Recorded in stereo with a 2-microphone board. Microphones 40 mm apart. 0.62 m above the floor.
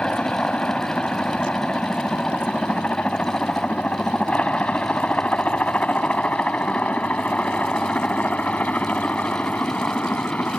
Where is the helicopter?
30° left (ahead or behind); by 10.6 s 45° left (ahead or behind).